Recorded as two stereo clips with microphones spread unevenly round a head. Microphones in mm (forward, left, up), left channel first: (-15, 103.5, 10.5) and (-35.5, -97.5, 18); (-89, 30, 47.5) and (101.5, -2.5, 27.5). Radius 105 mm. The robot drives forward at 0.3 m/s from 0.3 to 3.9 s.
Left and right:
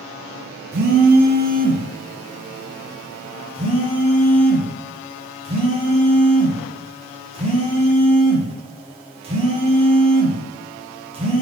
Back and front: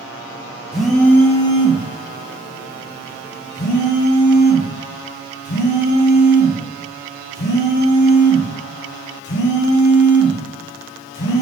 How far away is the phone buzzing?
About 0.6 m.